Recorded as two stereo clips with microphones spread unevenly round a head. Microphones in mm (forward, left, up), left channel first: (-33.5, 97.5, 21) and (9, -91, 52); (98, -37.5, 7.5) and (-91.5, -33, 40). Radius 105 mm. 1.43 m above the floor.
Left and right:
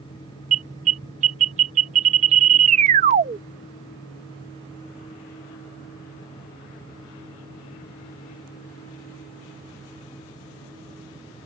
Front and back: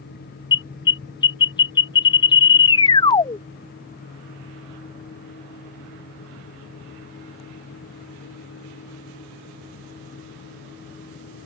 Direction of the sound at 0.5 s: 70° right.